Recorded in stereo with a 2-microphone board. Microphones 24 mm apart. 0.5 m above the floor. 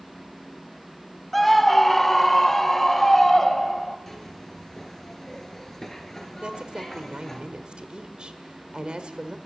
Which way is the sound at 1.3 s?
5° left (ahead or behind).